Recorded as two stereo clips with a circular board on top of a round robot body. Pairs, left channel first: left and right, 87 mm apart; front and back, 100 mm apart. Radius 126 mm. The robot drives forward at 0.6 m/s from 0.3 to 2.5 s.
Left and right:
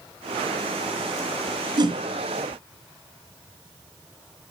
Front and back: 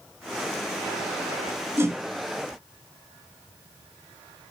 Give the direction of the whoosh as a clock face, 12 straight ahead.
4 o'clock.